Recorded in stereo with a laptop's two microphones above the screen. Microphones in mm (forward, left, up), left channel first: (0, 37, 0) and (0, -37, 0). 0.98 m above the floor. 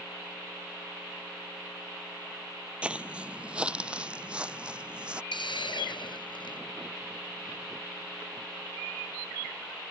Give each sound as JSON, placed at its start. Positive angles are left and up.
{"t": 2.8, "sound": "footsteps", "side_deg": -15}
{"t": 5.3, "sound": "a hiss", "side_deg": 85}